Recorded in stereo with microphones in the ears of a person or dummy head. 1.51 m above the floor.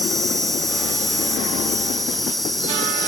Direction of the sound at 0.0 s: 5° left (ahead or behind).